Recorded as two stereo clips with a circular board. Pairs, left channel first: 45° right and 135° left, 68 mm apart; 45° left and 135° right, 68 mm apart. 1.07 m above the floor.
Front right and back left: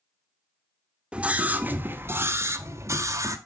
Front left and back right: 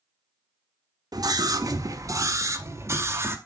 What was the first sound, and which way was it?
A scream, 155° right.